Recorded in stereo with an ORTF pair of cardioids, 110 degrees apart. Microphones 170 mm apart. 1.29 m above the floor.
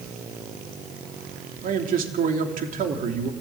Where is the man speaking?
55° right, 3 m.